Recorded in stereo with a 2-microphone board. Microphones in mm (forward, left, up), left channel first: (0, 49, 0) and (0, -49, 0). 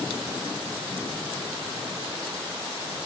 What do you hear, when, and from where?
Only background noise.